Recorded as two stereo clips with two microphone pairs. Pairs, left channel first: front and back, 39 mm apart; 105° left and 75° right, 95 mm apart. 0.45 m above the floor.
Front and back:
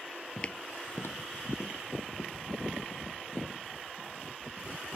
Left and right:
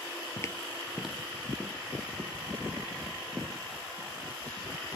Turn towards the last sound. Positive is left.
turn(degrees=-10)